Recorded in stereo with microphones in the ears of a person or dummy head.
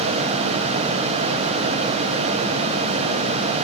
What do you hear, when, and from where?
Only background noise.